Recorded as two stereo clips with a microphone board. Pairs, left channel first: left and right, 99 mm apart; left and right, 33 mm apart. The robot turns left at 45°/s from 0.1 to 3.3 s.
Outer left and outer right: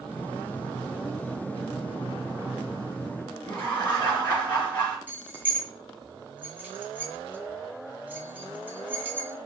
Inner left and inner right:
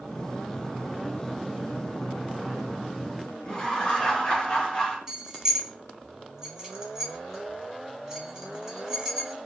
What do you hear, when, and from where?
3.4 s laughter: 20° left (ahead or behind), 1.1 m
5.1 s keys jangling: 20° right (ahead or behind), 0.8 m